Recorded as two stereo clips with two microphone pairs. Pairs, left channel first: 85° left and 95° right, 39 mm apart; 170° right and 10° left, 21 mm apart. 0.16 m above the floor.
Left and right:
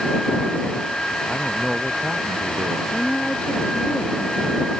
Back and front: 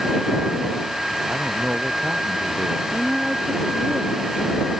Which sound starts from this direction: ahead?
A man speaking, at 1.3 s.